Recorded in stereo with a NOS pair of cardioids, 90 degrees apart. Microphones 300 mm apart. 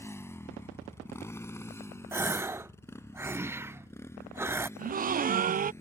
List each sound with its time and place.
0.0 s a motorcycle: 10° left
2.1 s a gasp: 10° right
4.8 s a gasp: 30° right